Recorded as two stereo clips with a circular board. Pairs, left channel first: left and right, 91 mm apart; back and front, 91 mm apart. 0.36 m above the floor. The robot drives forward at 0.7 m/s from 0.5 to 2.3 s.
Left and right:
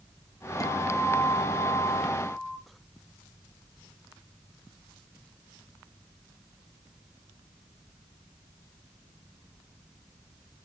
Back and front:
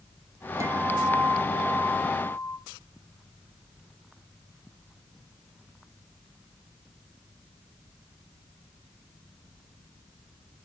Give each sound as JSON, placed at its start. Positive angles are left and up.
{"t": 0.6, "sound": "a guitar", "azimuth_deg": 50, "distance_m": 1.2}